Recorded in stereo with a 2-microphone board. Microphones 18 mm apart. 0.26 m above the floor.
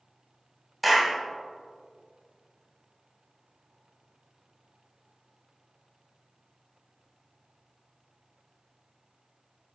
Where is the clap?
Centre (ahead or behind), 1.5 m.